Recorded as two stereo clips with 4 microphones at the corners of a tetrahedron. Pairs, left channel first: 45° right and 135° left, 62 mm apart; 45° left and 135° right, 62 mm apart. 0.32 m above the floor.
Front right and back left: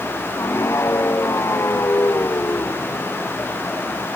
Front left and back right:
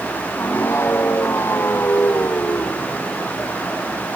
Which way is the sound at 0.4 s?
5° right.